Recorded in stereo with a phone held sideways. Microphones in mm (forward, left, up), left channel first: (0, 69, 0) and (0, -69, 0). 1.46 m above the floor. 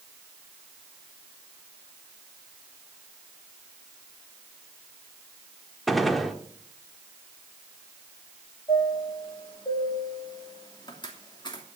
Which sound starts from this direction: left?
A chime, at 8.7 s.